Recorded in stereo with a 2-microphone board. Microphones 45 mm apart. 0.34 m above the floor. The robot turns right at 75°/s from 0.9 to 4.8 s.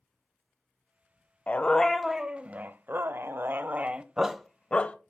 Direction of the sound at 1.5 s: 140° left.